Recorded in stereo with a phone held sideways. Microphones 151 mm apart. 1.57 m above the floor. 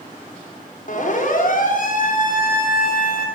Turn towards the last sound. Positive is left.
turn(degrees=75)  # may be behind; listen again after turning